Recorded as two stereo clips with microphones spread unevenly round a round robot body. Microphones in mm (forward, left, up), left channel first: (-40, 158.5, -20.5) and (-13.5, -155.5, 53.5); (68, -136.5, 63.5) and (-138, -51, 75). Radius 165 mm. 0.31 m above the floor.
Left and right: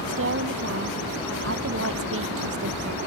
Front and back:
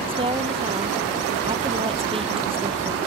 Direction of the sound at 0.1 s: 135° right.